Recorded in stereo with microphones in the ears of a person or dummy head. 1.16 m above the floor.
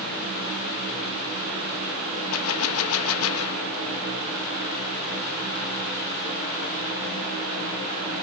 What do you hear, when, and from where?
2.3 s a gunshot: 85° left, 1.1 m